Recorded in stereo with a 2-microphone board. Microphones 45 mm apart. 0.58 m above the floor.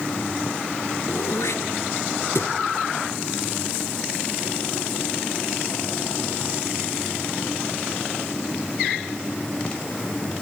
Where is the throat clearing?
80° left, 1.8 m.